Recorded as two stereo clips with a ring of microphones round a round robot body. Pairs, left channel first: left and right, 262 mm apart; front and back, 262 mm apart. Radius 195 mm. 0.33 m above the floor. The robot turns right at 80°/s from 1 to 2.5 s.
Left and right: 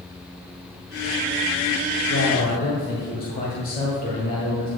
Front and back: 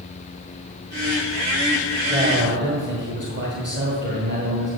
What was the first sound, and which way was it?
A man speaking, 105° left.